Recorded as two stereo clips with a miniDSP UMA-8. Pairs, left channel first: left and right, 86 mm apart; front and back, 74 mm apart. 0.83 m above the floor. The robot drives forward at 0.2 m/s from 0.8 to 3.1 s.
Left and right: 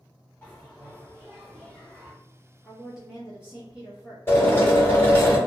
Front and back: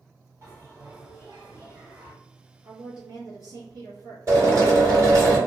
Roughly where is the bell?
Behind left.